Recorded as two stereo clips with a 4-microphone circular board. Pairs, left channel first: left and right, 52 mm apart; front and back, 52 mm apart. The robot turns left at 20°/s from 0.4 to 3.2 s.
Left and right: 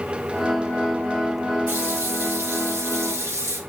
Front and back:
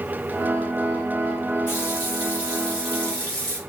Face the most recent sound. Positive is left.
turn(degrees=-75)